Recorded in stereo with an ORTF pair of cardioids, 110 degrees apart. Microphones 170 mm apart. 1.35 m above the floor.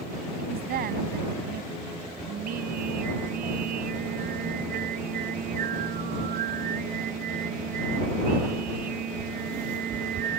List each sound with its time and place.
0.4 s a woman speaking: 65° right
2.3 s singing: 60° right